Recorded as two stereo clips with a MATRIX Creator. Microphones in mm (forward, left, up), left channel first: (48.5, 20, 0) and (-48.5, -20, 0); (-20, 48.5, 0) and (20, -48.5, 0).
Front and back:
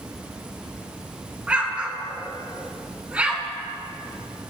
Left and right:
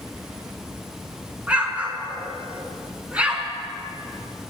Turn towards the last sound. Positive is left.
turn(degrees=-110)